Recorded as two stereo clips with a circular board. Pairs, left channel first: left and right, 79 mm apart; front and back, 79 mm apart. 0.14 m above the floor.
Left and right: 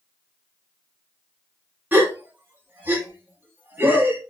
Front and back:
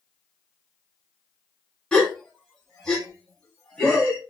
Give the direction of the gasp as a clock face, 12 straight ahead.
2 o'clock.